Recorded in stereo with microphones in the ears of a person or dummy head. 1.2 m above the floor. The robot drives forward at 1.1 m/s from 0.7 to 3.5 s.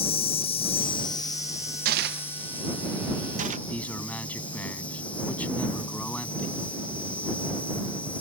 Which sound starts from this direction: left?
An insect, at 0.0 s.